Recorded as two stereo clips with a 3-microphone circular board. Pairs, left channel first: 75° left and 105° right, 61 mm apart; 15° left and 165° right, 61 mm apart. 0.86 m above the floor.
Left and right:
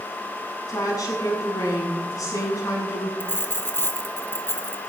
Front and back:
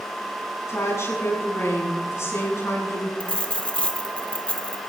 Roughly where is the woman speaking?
Ahead left.